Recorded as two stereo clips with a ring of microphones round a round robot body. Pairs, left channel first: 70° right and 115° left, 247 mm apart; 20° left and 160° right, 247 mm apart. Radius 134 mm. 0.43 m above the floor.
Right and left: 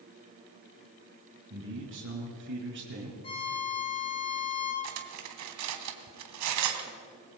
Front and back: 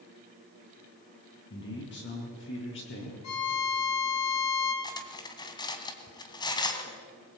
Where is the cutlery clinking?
95° left, 2.5 m.